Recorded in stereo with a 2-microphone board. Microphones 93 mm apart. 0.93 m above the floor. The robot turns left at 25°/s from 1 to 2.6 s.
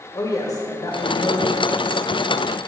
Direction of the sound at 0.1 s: 40° left (ahead or behind).